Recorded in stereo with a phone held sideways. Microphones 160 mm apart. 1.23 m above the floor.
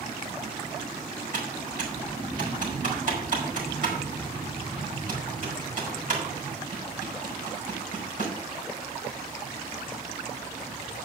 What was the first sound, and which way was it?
Typing on a keyboard, 60° right (ahead or behind).